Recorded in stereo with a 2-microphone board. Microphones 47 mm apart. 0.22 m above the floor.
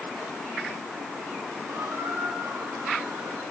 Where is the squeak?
80° right, 7 m.